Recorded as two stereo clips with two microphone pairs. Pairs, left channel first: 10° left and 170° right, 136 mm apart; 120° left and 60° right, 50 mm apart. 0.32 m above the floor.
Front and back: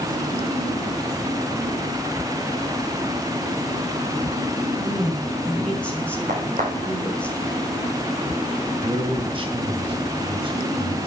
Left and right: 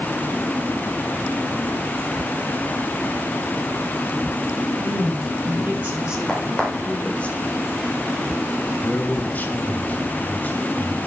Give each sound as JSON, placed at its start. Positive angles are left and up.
{"t": 4.8, "sound": "a woman speaking", "azimuth_deg": -75, "distance_m": 2.5}
{"t": 6.3, "sound": "a crack", "azimuth_deg": -155, "distance_m": 5.0}
{"t": 8.8, "sound": "a man speaking", "azimuth_deg": 165, "distance_m": 1.7}